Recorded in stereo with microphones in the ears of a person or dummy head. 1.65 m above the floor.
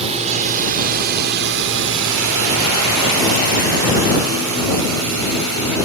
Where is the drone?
35° right (ahead or behind); by 5.9 s 65° right (ahead or behind).